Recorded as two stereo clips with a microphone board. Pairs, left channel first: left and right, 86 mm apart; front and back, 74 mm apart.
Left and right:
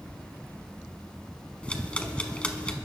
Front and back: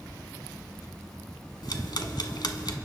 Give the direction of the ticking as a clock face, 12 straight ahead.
12 o'clock.